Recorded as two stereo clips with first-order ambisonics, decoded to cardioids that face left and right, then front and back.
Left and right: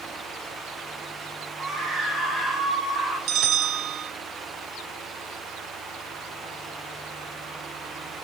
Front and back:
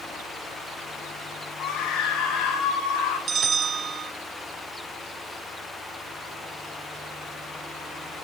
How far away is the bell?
About 0.8 m.